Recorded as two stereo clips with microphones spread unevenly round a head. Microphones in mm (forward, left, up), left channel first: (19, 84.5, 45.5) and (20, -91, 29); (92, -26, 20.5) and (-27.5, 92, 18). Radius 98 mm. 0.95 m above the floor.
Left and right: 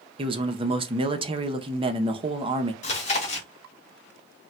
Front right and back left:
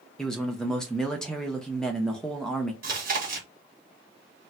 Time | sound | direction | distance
0.2 | a man speaking | 130° right | 0.6 m
2.8 | chewing | 135° left | 1.3 m